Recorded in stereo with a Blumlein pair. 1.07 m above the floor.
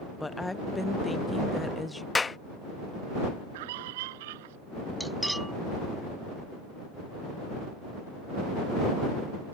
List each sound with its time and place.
0.2 s a woman speaking: 5° left
2.1 s a clap: 10° left
3.5 s a scream: 50° right
5.0 s cutlery clinking: 5° right